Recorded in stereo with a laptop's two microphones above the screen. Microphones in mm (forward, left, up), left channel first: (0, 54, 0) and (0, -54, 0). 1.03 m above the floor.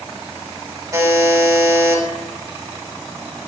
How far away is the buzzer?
About 1.3 m.